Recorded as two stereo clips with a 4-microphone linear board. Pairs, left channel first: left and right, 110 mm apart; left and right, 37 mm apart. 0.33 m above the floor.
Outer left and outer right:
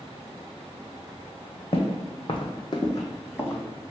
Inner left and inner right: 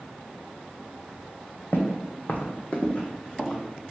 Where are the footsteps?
70° left (ahead or behind), 0.9 m; by 3.6 s 20° left (ahead or behind), 1.2 m.